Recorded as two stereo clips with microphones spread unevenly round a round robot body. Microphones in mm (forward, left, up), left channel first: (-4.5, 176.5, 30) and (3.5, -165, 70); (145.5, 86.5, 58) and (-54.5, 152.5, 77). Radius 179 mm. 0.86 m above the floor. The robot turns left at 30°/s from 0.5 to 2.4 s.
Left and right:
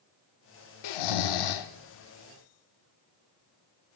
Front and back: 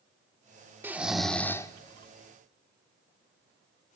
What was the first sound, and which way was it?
Snoring, 85° left.